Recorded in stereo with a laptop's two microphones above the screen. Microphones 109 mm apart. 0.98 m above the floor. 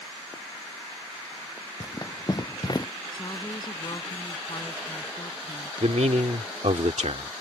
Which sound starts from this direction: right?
A man speaking, at 5.8 s.